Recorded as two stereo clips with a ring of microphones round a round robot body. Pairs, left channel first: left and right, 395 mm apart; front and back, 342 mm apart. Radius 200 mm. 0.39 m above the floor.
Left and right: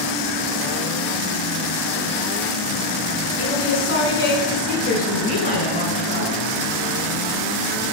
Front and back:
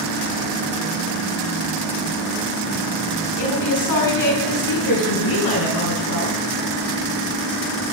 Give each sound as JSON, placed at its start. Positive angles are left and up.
{"t": 3.4, "sound": "a woman speaking", "azimuth_deg": 30, "distance_m": 5.0}